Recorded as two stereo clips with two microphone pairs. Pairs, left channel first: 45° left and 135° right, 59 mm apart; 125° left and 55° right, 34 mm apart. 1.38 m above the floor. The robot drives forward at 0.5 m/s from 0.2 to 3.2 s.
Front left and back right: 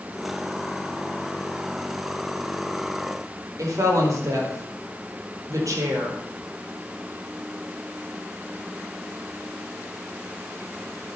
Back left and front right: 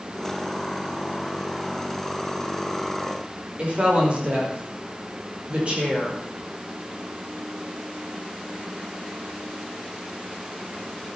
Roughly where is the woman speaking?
Right.